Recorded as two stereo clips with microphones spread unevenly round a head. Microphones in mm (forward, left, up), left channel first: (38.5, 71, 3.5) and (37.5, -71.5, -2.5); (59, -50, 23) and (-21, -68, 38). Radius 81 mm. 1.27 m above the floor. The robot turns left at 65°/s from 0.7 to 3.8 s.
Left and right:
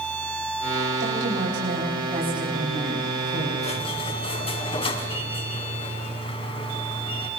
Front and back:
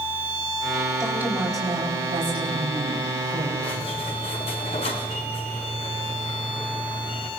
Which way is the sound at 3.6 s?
55° left.